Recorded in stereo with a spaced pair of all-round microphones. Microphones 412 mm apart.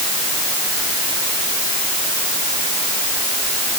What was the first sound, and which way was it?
Only background noise.